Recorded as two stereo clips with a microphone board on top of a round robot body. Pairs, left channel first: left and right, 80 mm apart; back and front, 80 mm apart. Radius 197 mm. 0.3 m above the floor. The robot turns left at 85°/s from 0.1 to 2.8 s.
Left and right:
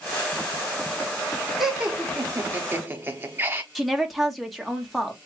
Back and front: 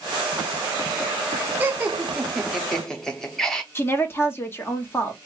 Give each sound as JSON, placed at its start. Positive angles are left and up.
{"t": 1.6, "sound": "laughter", "azimuth_deg": -5, "distance_m": 1.0}
{"t": 3.8, "sound": "a woman speaking", "azimuth_deg": 180, "distance_m": 1.6}